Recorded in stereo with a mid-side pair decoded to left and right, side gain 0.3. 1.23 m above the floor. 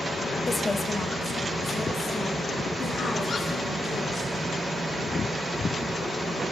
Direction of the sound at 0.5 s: 30° left.